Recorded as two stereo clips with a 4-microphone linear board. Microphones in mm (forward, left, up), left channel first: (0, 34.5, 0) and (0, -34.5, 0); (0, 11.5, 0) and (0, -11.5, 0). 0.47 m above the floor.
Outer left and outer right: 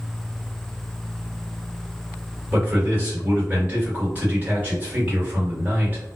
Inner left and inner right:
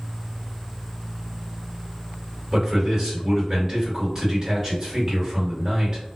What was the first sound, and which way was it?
A man speaking, 20° right (ahead or behind).